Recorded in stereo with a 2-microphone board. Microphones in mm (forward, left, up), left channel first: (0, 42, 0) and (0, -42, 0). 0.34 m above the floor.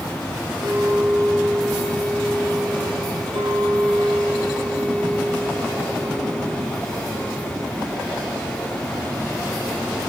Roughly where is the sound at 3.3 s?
Right.